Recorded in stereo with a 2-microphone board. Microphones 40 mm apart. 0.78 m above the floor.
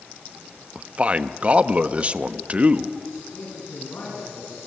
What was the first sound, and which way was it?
A man speaking, 30° right (ahead or behind).